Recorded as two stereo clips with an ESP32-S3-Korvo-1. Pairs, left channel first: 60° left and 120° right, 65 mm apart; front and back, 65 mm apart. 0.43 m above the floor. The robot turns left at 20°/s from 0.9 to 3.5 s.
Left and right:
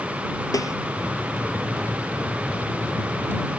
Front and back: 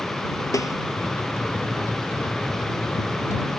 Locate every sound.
0.5 s a snare drum: 30° left